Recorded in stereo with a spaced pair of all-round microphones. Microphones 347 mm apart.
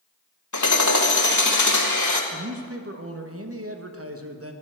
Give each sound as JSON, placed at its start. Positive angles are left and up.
{"t": 0.5, "sound": "hammering", "side_deg": 50, "distance_m": 1.2}
{"t": 2.3, "sound": "a man speaking", "side_deg": -40, "distance_m": 1.0}